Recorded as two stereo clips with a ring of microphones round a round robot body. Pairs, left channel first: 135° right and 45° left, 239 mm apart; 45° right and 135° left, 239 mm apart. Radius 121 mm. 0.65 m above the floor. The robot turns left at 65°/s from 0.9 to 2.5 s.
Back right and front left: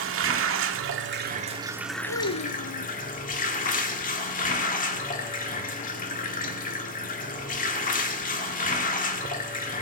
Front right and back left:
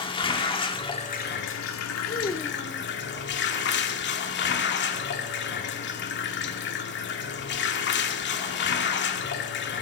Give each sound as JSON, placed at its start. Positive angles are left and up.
{"t": 0.0, "sound": "running water", "azimuth_deg": 20, "distance_m": 1.7}
{"t": 2.1, "sound": "a child speaking", "azimuth_deg": -105, "distance_m": 0.9}